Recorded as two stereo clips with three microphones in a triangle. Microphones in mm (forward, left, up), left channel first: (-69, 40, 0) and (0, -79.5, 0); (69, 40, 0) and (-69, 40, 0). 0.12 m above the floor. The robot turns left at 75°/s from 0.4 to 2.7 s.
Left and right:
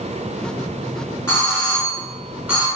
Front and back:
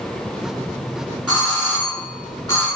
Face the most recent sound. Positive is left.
turn(degrees=-15)